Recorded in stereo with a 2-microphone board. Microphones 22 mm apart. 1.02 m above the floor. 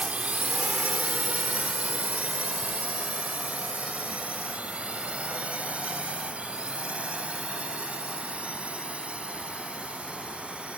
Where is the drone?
70° right (ahead or behind); by 10.8 s 65° right (ahead or behind).